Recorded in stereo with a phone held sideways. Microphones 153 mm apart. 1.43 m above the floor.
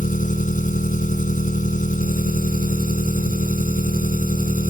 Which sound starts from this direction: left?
An engine running, at 0.0 s.